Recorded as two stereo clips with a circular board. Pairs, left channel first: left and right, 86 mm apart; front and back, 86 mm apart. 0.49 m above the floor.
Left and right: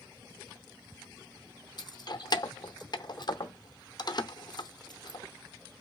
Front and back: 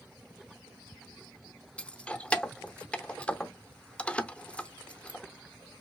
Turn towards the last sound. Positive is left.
turn(degrees=75)